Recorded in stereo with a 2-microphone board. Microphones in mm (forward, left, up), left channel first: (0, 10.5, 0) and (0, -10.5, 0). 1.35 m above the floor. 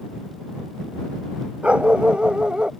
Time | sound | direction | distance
1.6 | a dog barking | 65° right (ahead or behind) | ?